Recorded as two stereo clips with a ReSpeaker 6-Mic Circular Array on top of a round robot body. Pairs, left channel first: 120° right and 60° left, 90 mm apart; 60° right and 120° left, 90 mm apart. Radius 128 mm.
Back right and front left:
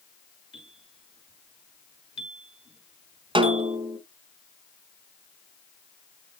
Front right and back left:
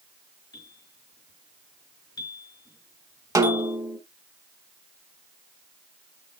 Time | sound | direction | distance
0.5 | a bell | 105° right | 4 m
3.4 | a snare drum | 70° left | 1.6 m